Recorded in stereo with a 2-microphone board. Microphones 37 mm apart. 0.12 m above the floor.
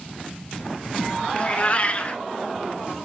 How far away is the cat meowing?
About 0.7 m.